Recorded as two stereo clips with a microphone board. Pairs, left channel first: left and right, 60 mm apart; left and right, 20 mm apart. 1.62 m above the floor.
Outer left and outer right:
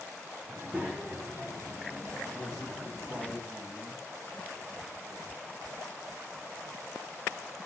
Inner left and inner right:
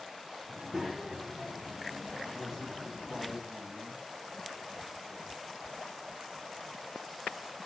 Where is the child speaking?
15° right (ahead or behind), 0.8 m; by 3.3 s 60° right (ahead or behind), 1.7 m.